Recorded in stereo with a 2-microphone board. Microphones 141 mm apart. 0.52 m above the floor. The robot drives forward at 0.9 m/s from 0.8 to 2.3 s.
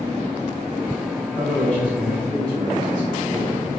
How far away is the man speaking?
About 1.4 m.